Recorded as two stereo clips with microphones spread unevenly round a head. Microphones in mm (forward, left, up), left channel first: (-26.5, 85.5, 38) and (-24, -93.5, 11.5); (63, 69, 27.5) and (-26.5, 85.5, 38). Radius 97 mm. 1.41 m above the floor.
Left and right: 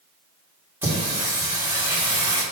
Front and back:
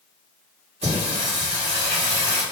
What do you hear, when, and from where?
0.8 s singing: 165° right, 1.8 m